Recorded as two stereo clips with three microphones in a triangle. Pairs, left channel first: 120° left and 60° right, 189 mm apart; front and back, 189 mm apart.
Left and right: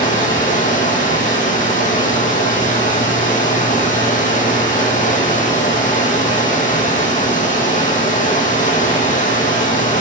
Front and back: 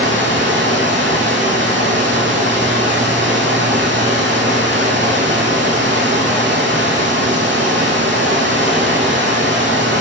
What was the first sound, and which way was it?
Running water, 165° left.